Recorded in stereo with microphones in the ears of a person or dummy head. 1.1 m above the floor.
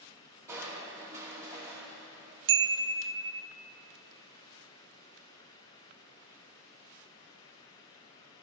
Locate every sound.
0.5 s crushing: 15° right (ahead or behind), 1.6 m
2.5 s a chime: 75° right (ahead or behind), 0.5 m